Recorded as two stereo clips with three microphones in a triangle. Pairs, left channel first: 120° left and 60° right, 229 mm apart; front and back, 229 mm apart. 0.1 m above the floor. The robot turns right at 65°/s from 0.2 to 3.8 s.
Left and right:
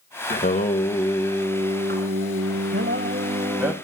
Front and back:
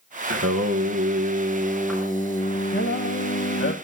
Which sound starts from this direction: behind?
Singing, at 0.3 s.